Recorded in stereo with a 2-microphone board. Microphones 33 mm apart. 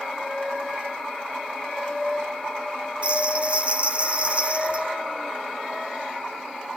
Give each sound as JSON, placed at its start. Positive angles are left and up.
{"t": 3.0, "sound": "a bell", "side_deg": -40, "distance_m": 2.0}